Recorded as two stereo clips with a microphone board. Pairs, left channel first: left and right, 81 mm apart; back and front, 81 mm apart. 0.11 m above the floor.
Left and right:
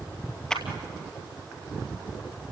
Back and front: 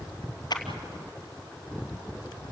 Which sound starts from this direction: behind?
A clap, at 0.5 s.